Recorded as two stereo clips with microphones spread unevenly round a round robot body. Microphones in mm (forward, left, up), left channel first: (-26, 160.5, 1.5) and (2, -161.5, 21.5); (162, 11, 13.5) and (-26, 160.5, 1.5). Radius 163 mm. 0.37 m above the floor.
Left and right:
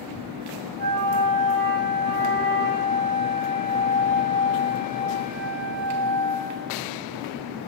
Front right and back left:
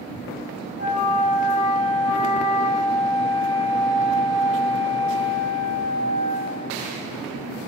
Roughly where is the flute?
Ahead right.